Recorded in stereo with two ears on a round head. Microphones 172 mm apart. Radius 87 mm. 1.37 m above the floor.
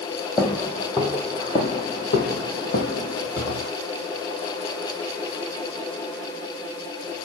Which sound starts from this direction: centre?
Footsteps, at 0.4 s.